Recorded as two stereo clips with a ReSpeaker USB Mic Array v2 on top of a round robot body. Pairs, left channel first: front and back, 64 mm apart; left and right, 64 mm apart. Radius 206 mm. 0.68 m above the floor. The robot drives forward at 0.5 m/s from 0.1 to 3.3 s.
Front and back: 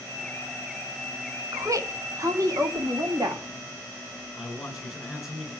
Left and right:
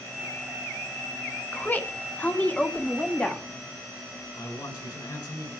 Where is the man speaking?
95° left, 10 m.